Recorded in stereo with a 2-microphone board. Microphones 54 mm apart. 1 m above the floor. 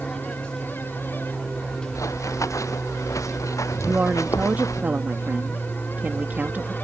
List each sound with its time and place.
0.0 s an aircraft: 15° left (ahead or behind)
1.9 s running footsteps: 75° left (ahead or behind); by 4.8 s 85° left
3.8 s a woman speaking: 35° right (ahead or behind)